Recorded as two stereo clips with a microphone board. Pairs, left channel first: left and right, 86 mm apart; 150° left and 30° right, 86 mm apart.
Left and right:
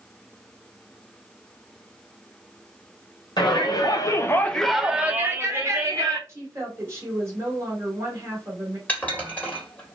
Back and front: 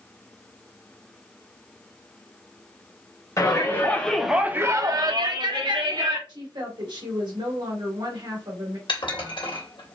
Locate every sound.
3.4 s a shout: 105° left, 1.1 m; by 6.2 s 40° right, 1.6 m
6.3 s a woman speaking: 35° right, 1.9 m
8.9 s dishes clattering: 160° left, 1.6 m